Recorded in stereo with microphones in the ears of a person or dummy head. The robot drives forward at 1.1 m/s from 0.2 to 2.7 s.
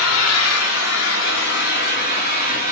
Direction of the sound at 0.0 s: 80° left.